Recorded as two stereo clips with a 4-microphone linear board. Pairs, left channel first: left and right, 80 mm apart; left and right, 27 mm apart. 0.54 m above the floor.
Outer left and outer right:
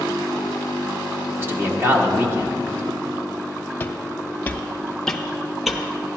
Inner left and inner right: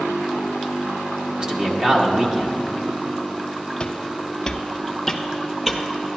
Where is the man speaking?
30° right (ahead or behind), 1.1 m.